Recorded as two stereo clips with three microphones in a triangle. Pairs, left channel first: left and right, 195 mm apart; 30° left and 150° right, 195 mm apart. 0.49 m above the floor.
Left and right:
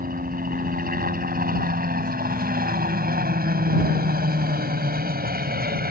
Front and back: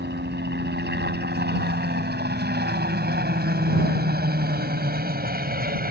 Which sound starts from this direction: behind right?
A helicopter, at 0.0 s.